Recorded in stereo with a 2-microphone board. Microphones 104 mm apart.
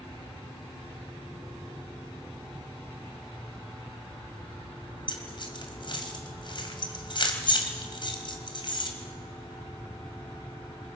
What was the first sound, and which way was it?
Keys jangling, 45° left (ahead or behind).